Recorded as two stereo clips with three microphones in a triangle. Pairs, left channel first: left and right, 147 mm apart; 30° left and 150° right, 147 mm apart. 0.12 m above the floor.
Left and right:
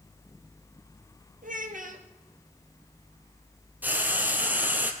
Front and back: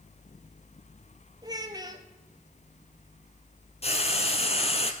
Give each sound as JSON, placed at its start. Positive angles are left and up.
{"t": 1.4, "sound": "a child speaking", "azimuth_deg": -90, "distance_m": 1.8}
{"t": 3.8, "sound": "frying", "azimuth_deg": -10, "distance_m": 1.4}